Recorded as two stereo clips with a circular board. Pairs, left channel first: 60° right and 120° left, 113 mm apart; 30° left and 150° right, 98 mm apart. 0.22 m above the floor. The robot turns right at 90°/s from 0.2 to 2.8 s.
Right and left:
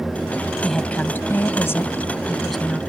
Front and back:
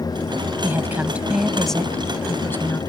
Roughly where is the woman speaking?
Behind right.